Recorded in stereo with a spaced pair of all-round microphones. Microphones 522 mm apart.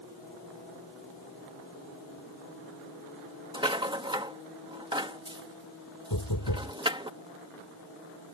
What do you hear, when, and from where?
3.5 s a rattle: 10° right (ahead or behind)
6.1 s knocking: 40° left (ahead or behind)